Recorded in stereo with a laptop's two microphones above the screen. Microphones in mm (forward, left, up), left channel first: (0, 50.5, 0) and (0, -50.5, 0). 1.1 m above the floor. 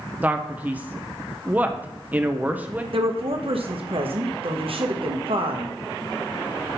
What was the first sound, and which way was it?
A man speaking, 15° right (ahead or behind).